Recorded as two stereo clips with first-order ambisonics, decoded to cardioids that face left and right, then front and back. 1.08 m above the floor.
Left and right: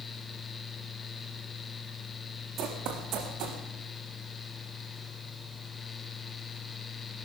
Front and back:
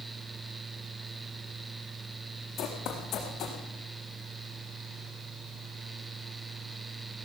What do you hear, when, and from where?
2.6 s running footsteps: 50° right, 6.5 m; by 3.6 s 55° right, 5.5 m